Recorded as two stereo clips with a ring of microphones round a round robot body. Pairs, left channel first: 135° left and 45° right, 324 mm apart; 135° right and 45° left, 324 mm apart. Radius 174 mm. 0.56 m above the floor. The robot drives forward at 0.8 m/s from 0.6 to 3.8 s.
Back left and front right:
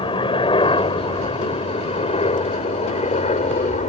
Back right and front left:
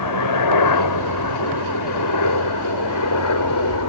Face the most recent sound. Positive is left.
turn(degrees=-160)